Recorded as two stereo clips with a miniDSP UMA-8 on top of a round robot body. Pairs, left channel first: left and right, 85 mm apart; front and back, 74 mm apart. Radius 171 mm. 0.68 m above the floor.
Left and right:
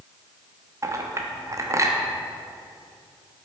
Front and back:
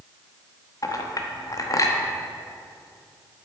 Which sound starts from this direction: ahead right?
A clink, at 0.8 s.